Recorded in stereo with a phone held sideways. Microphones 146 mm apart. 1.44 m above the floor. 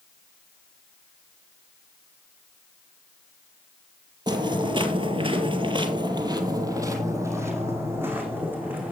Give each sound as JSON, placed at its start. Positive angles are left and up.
{"t": 4.3, "sound": "footsteps", "side_deg": -30, "distance_m": 2.0}